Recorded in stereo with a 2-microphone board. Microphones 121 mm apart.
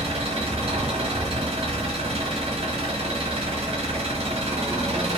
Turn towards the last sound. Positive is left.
turn(degrees=-55)  # may be behind; listen again after turning